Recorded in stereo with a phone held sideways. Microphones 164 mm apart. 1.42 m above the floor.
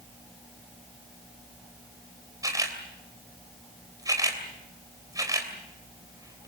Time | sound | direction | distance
2.4 | a camera shutter | 20° right (ahead or behind) | 3 m